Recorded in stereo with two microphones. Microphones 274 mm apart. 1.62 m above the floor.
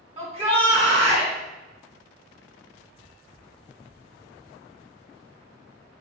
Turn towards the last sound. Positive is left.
turn(degrees=-20)  # may be behind; listen again after turning